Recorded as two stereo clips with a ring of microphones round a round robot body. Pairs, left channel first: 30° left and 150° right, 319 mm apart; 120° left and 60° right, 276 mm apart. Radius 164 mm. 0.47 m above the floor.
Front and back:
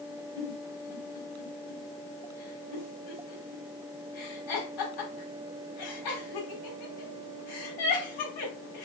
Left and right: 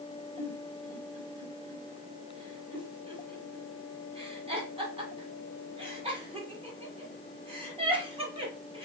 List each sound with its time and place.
0.4 s a giggle: 10° left, 1.2 m